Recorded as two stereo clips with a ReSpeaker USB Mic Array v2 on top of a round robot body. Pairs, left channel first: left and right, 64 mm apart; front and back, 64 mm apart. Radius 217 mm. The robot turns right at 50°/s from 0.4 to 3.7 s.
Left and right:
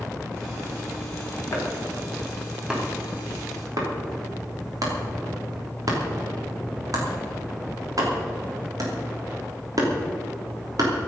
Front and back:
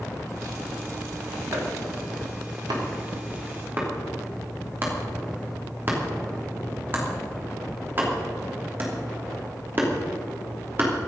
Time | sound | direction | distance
1.5 | chopping | 130° left | 3 m